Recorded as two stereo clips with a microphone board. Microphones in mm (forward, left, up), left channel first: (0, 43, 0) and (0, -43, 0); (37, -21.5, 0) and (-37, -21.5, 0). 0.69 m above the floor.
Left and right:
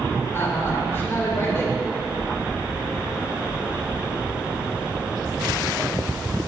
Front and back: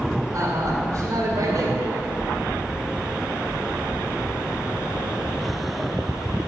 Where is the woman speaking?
150° left, 2.5 m.